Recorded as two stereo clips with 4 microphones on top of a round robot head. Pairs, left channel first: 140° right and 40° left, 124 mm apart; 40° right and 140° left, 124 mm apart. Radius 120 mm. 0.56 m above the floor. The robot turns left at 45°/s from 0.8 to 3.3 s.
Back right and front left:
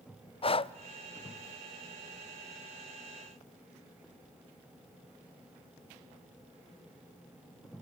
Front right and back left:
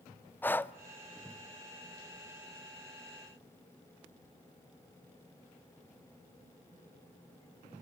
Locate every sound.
0.4 s breathing: 115° right, 0.7 m